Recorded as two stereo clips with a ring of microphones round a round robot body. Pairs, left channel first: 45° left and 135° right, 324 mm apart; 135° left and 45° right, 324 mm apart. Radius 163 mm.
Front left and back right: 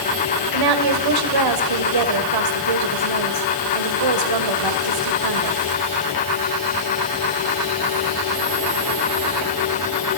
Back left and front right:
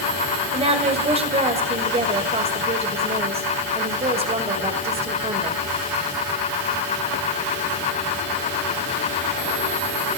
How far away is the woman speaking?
About 2.5 m.